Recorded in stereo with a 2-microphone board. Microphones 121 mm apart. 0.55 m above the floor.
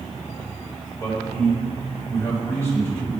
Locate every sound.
1.0 s a man speaking: 20° left (ahead or behind), 3 m